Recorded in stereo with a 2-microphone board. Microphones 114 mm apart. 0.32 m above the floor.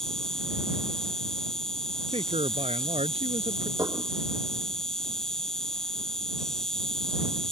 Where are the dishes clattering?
30° right (ahead or behind).